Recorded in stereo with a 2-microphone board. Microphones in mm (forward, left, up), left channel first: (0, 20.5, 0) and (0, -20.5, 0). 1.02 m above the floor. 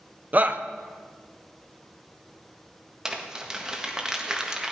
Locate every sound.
0.3 s a shout: 40° right (ahead or behind), 0.9 m
3.0 s crumpling: 15° right (ahead or behind), 1.6 m